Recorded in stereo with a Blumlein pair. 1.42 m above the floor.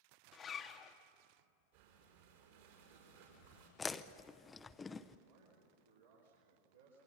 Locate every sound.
0.3 s a zipper: 25° left, 1.3 m
1.7 s breathing: 55° right, 5 m
3.8 s chewing: 15° left, 0.8 m
5.3 s a man speaking: 65° right, 4 m